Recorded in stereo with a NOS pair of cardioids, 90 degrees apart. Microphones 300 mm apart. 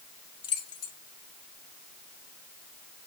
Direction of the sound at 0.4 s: 50° left.